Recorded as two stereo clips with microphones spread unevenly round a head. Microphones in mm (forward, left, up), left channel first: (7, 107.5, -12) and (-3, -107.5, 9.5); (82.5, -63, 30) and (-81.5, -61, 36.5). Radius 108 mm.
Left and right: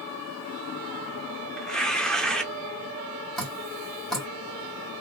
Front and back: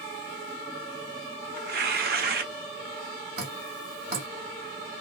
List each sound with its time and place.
1.6 s tearing paper: straight behind, 0.6 m
3.4 s dripping: straight behind, 1.8 m